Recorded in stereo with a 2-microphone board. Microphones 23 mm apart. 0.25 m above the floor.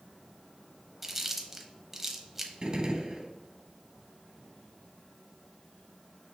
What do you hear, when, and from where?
1.0 s chewing: 10° right (ahead or behind), 0.7 m
2.6 s a gunshot: 35° right (ahead or behind), 0.7 m